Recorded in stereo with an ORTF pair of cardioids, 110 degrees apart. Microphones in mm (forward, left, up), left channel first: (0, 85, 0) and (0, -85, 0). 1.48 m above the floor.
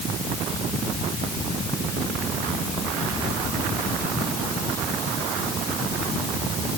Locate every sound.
Only background noise.